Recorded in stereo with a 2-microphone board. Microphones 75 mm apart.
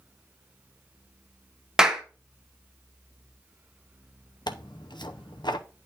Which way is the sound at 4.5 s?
75° left (ahead or behind).